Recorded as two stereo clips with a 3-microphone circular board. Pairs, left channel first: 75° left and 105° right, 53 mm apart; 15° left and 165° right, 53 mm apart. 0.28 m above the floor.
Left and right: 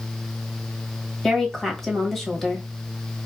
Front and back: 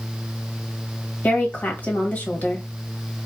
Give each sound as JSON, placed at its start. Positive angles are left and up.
{"t": 1.2, "sound": "a woman speaking", "azimuth_deg": -5, "distance_m": 1.4}